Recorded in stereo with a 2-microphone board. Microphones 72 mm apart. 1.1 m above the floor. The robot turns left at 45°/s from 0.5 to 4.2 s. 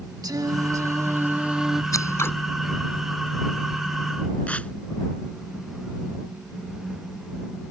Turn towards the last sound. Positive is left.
turn(degrees=20)  # may be behind; listen again after turning